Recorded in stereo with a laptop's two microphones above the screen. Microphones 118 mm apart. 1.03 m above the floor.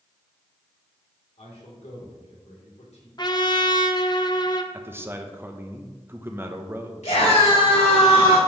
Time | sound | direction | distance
1.4 | a man speaking | 75° left (ahead or behind) | 3 m
3.2 | a trumpet | 35° left (ahead or behind) | 0.6 m
4.7 | a man speaking | 20° right (ahead or behind) | 0.7 m
7.0 | a scream | 75° left (ahead or behind) | 3 m